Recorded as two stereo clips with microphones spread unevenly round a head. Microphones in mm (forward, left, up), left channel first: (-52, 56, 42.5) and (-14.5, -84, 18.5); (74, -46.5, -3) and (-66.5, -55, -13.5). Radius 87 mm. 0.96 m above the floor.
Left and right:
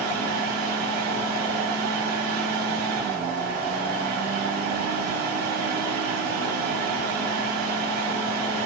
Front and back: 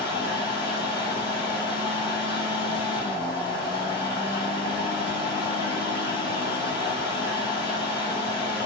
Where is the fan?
55° right, 1.9 m.